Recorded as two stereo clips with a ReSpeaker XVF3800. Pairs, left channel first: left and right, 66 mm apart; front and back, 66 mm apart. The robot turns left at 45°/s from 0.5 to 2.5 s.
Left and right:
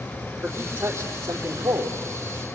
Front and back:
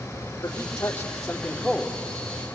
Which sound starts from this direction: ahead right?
A man speaking, at 0.4 s.